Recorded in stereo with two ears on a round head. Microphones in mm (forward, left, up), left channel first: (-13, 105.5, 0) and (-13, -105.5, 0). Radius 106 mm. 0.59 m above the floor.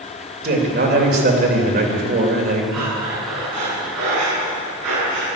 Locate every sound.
0.4 s a man speaking: 45° right (ahead or behind), 3 m
2.7 s breathing: 75° right (ahead or behind), 7 m